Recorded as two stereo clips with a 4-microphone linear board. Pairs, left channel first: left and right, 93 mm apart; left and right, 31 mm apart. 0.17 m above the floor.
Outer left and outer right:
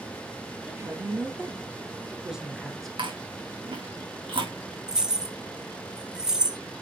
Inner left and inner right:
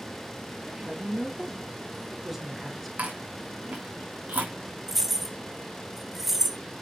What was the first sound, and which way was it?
A woman speaking, 30° right (ahead or behind).